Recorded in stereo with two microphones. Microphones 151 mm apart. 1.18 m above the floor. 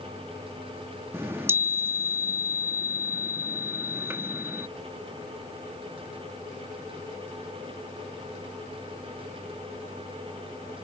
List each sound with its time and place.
1.1 s a chime: 15° right (ahead or behind)